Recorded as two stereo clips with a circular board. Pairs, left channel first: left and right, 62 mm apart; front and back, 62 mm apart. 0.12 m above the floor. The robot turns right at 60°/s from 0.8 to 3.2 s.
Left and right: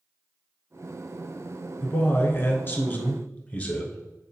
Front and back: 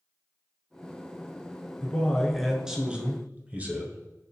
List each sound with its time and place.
1.8 s a man speaking: 55° left, 1.3 m; by 4.0 s 140° left, 1.3 m